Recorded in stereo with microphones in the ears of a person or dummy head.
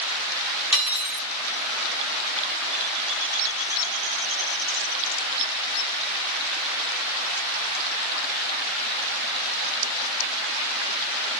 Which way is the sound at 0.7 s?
5° right (ahead or behind).